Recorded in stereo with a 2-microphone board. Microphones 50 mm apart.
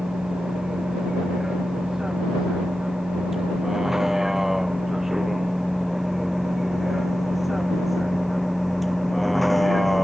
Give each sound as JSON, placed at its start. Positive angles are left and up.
{"t": 0.0, "sound": "a vehicle", "side_deg": -10}